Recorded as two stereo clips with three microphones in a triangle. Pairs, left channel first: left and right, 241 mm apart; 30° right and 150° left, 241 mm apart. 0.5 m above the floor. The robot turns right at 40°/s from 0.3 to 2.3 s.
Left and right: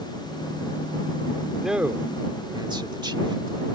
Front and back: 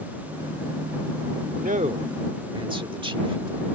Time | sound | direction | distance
1.6 | a man speaking | straight behind | ?